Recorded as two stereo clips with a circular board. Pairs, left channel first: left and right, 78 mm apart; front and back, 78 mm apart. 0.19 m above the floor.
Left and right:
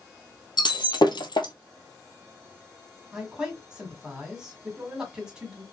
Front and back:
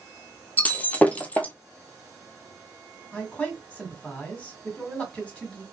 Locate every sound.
0.6 s breaking glass: 70° left, 0.6 m
3.1 s a man speaking: 30° right, 1.6 m